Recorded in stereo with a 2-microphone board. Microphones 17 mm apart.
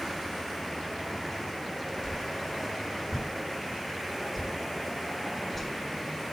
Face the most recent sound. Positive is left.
turn(degrees=25)  # may be behind; listen again after turning